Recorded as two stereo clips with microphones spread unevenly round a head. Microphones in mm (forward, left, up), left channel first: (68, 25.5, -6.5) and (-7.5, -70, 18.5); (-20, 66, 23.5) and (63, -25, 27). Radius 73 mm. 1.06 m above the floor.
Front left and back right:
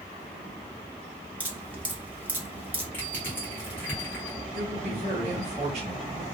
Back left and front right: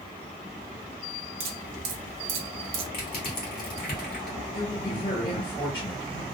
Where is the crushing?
135° left, 1.3 m.